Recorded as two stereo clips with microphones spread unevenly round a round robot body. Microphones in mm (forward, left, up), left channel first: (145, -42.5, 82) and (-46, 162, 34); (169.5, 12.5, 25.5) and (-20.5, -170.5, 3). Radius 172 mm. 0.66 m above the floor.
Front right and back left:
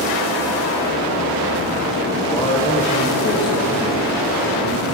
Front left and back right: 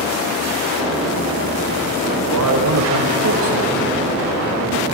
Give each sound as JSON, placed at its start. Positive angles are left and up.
{"t": 2.3, "sound": "a man speaking", "azimuth_deg": -130, "distance_m": 2.0}